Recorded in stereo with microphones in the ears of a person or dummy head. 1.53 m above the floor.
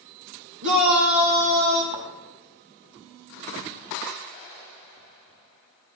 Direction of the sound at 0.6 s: 65° right (ahead or behind).